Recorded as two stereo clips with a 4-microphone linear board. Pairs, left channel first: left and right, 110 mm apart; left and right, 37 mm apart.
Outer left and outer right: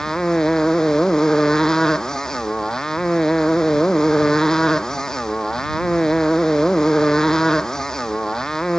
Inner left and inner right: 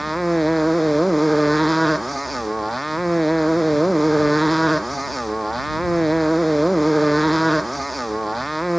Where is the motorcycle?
5° left (ahead or behind).